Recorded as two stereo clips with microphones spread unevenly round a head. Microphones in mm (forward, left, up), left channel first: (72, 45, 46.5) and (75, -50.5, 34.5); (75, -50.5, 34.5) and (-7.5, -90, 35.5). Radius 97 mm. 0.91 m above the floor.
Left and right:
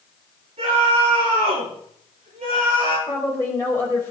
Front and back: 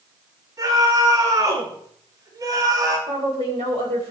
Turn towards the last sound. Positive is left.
turn(degrees=165)